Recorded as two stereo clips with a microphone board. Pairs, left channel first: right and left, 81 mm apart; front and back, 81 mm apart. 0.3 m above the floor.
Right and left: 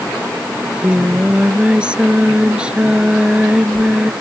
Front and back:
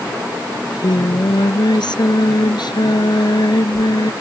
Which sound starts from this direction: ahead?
Singing, at 0.6 s.